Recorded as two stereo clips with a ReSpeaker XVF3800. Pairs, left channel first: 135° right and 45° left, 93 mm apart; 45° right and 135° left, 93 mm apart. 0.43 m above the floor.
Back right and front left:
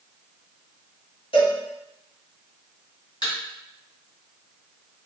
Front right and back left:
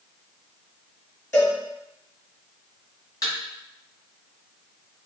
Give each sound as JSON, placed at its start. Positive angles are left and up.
{"t": 1.3, "sound": "a cowbell", "azimuth_deg": -110, "distance_m": 1.9}
{"t": 3.2, "sound": "a thud", "azimuth_deg": -95, "distance_m": 1.7}